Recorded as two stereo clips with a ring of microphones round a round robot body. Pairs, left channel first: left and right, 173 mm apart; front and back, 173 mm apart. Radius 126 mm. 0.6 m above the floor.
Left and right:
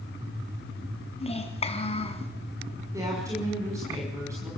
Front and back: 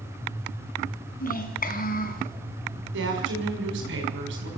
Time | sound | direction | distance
1.2 | a child speaking | 35° left | 4 m
2.9 | a woman speaking | 170° right | 6 m